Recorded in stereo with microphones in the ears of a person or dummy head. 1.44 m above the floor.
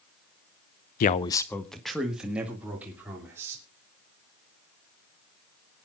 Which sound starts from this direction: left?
A man speaking, at 1.0 s.